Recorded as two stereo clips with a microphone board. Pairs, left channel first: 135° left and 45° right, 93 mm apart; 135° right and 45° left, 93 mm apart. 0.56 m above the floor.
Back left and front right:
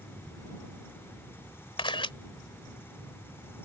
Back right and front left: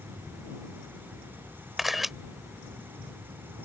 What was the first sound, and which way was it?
A camera shutter, 135° left.